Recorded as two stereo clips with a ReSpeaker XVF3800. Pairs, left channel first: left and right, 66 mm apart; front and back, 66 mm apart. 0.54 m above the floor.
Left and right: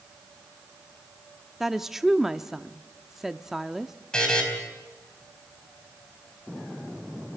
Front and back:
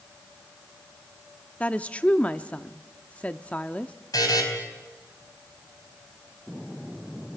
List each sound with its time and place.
1.6 s a woman speaking: 15° right, 0.6 m
4.1 s a buzzer: 10° left, 4.5 m